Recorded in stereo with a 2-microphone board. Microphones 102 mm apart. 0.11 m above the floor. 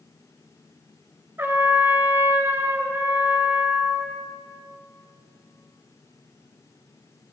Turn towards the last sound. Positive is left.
turn(degrees=-20)  # may be behind; listen again after turning